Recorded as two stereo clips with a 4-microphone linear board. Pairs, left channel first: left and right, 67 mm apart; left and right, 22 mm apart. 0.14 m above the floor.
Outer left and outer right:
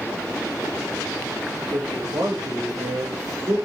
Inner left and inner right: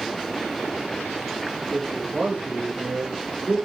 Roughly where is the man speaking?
Right.